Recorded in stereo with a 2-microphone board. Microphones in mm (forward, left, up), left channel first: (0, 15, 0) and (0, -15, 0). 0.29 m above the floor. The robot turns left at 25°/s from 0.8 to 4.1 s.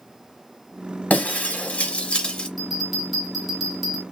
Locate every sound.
1.1 s breaking glass: 70° left, 0.8 m; by 2.5 s 35° left, 0.8 m
2.6 s a bell: 5° right (ahead or behind), 1.2 m; by 4.0 s 5° left (ahead or behind), 1.2 m